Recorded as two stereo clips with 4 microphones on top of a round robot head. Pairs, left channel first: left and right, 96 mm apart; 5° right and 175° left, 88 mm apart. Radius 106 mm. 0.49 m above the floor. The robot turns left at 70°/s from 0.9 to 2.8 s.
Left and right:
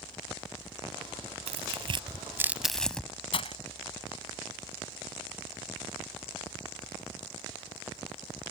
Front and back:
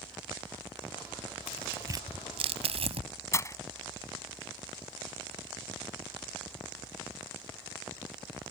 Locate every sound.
1.5 s tearing paper: 95° right; by 3.1 s 175° left
3.3 s breaking glass: 55° left